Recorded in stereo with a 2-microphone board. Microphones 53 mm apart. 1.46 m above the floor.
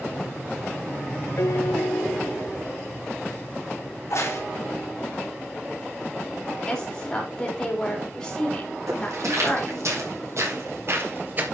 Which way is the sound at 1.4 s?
85° left.